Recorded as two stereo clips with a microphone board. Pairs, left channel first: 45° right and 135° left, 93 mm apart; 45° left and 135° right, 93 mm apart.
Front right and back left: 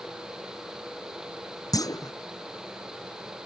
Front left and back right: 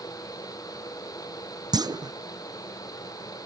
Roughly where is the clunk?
Right.